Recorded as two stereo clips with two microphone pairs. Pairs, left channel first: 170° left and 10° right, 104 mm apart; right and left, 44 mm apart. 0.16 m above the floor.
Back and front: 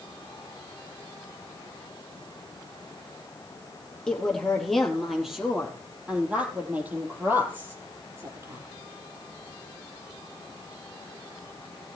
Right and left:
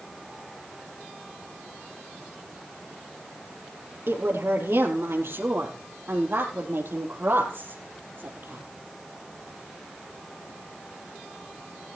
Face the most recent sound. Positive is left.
turn(degrees=55)